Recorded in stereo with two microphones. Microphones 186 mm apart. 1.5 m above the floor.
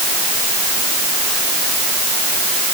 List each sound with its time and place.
Only background noise.